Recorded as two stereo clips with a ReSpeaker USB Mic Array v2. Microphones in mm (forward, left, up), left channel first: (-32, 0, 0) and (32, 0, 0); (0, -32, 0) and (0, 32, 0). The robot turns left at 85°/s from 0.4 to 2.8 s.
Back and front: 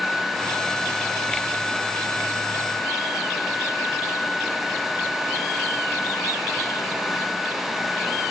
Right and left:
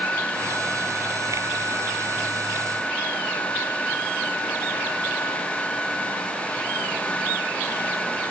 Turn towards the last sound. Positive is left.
No sound to turn to.